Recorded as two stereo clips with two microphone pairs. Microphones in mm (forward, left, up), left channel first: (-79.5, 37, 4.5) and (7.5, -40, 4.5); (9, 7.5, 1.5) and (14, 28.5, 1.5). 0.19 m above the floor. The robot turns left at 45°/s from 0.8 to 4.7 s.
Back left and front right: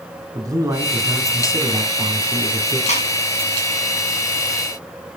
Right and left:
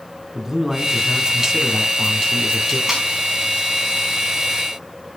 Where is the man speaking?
5° left, 2 m; by 2.8 s 80° right, 2 m.